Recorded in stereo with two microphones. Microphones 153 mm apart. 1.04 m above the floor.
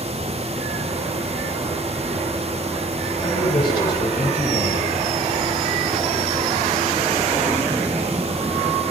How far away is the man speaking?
About 7.5 m.